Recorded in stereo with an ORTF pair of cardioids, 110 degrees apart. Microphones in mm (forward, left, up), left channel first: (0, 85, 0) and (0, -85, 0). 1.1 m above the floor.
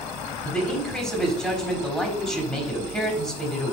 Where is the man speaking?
5° left, 3.5 m.